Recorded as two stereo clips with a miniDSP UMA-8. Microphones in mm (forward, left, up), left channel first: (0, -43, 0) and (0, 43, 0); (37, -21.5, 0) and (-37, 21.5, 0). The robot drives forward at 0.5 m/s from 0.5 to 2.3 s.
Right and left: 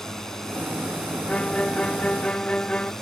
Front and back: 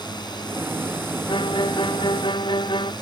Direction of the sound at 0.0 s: 5° right.